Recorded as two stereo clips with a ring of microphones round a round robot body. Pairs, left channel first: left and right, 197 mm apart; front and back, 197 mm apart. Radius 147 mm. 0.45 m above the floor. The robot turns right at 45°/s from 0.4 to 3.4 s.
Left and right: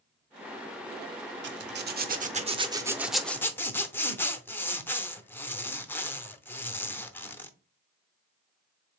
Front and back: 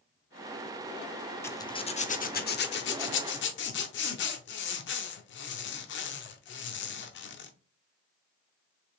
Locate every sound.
1.4 s a zipper: 80° right, 0.8 m; by 7.5 s 10° left, 0.8 m